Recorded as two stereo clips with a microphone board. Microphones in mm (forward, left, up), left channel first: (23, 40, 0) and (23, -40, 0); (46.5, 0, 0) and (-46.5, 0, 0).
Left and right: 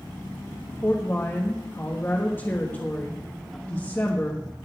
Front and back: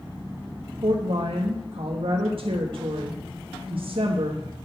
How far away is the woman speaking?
About 1.3 m.